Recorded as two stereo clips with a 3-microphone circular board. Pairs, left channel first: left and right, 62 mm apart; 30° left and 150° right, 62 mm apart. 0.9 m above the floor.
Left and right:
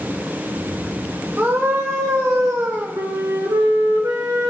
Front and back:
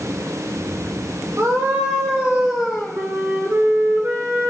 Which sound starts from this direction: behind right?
A scream, at 1.4 s.